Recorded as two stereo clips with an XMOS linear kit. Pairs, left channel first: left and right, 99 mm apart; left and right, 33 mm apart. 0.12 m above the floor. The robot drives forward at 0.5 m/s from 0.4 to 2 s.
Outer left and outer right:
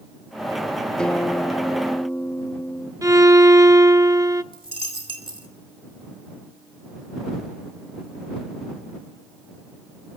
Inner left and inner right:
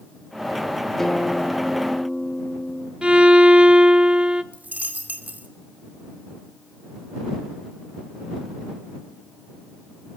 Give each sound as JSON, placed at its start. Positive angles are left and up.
{"t": 1.0, "sound": "a guitar", "side_deg": 10, "distance_m": 1.8}
{"t": 3.0, "sound": "a violin", "side_deg": -30, "distance_m": 0.8}
{"t": 4.5, "sound": "a dropped coin", "side_deg": -55, "distance_m": 2.5}